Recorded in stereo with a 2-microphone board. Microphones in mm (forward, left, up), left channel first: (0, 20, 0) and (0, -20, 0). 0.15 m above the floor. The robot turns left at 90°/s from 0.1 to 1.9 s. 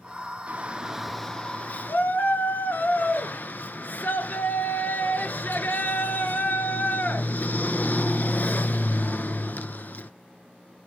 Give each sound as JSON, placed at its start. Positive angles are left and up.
{"t": 0.5, "sound": "a shout", "azimuth_deg": -120, "distance_m": 1.9}